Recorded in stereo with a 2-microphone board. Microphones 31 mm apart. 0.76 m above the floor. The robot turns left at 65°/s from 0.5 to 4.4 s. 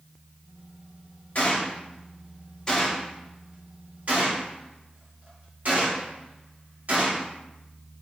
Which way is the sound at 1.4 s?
50° left (ahead or behind).